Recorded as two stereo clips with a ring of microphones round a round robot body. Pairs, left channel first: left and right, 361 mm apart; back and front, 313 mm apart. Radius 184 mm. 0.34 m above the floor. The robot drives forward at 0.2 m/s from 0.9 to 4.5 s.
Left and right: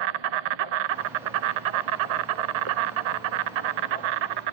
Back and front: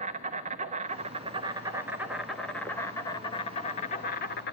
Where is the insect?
70° right, 0.9 m; by 4.5 s 115° right, 1.0 m.